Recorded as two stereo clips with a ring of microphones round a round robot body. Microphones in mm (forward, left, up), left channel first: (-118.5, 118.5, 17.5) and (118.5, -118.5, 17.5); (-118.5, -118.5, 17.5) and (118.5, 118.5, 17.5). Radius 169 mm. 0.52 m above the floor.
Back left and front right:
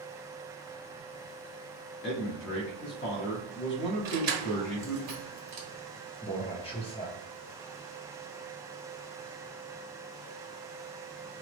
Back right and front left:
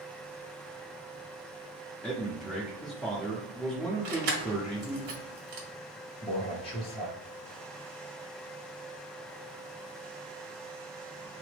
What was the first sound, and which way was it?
A man speaking, 140° left.